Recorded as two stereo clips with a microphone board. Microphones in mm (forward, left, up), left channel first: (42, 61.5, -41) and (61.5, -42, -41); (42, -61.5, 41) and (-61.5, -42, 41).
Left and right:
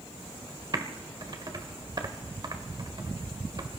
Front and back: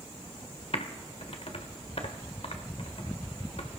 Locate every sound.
0.7 s typing on a keyboard: 30° right, 1.7 m